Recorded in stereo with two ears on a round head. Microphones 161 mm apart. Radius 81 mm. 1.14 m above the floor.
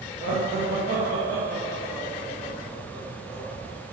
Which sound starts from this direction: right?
Laughter, at 0.2 s.